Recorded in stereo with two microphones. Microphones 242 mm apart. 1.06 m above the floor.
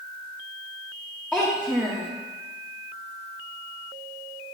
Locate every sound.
1.3 s a child speaking: centre (ahead or behind), 0.6 m